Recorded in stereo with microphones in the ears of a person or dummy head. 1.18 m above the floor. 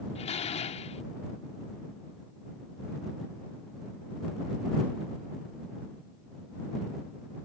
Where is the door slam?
35° left (ahead or behind).